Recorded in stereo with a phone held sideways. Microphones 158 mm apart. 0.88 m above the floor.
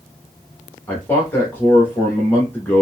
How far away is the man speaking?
About 1.2 m.